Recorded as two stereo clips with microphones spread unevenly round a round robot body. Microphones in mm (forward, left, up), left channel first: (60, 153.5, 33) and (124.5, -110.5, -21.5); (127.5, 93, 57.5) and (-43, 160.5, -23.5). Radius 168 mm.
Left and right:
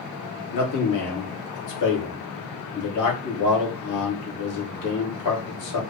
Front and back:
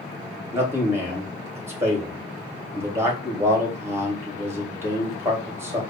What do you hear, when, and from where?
0.5 s a man speaking: 90° left, 2.5 m